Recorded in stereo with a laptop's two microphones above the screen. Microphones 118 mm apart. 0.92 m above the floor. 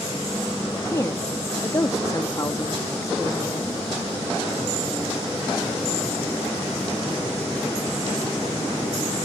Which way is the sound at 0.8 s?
25° left (ahead or behind).